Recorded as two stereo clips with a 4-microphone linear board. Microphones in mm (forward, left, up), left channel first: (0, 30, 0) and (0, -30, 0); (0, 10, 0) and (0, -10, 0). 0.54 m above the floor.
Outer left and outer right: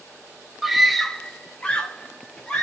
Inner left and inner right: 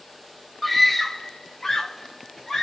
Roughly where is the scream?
Centre.